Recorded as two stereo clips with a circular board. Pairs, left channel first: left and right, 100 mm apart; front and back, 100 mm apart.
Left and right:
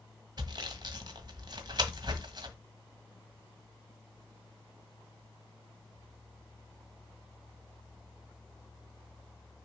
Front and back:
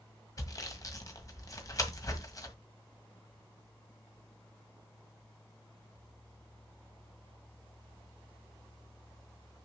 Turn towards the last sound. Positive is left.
turn(degrees=-50)